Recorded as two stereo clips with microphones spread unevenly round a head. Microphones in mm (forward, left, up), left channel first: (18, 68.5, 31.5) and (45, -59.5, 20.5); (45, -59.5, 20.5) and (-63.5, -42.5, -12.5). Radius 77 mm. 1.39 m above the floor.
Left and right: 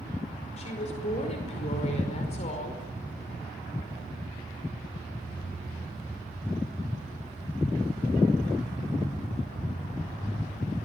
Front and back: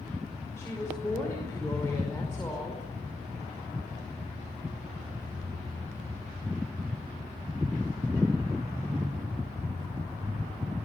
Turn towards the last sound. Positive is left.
turn(degrees=65)